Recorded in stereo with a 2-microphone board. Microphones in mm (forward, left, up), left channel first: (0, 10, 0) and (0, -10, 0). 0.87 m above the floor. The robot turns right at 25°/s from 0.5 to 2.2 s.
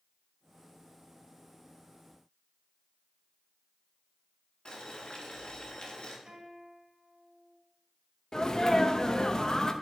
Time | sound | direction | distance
4.7 | boiling | 45° left (ahead or behind) | 2 m
6.3 | a guitar | 70° right (ahead or behind) | 3.5 m
8.3 | a sneeze | 35° left (ahead or behind) | 0.7 m